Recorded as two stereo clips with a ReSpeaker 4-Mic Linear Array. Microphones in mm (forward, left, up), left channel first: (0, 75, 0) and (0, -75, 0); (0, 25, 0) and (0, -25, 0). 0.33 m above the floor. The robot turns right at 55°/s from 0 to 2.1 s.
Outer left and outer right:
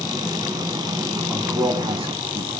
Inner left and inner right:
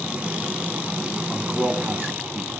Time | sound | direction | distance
1.3 | a man speaking | 5° right (ahead or behind) | 3 m